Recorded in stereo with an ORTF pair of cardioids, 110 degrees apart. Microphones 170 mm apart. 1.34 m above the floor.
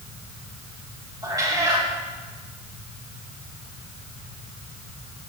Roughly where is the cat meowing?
Ahead right.